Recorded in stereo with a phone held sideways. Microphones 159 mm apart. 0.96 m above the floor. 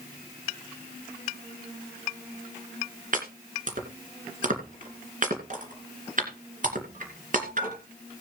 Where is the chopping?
55° right (ahead or behind), 2.5 m.